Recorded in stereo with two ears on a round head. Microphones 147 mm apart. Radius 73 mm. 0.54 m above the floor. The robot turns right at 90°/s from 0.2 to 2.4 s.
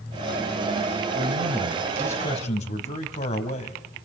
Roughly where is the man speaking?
Right.